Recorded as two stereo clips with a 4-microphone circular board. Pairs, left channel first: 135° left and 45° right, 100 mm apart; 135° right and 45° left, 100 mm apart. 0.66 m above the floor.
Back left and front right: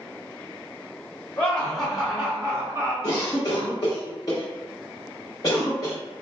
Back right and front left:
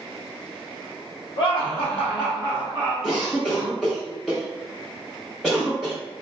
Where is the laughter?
150° right, 1.1 m; by 2.9 s 95° right, 1.2 m.